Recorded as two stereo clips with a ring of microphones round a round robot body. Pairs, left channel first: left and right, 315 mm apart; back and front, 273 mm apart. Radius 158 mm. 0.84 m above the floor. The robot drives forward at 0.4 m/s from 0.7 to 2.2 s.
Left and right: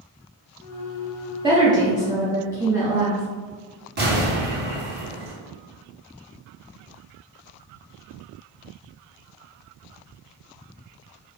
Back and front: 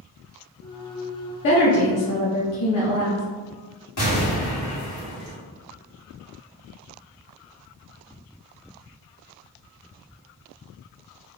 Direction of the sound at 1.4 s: 160° right.